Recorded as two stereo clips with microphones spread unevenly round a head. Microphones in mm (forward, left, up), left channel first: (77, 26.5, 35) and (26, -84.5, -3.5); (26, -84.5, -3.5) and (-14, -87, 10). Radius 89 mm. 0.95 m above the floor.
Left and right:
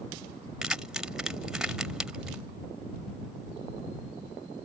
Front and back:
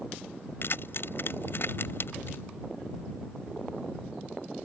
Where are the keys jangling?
30° right.